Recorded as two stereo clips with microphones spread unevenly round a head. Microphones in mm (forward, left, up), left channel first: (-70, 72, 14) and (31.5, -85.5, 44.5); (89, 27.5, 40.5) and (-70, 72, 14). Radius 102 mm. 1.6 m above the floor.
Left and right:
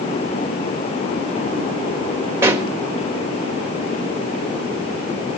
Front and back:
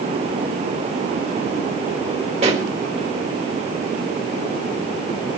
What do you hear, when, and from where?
2.4 s a pop: 130° right, 1.9 m